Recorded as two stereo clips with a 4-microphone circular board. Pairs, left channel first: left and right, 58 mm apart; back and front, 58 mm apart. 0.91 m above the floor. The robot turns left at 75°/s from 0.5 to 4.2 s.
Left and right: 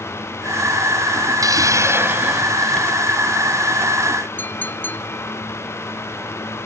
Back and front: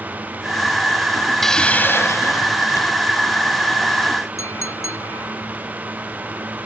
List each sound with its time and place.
1.4 s a hiss: 95° right; by 2.9 s 155° left
4.4 s a clink: 145° left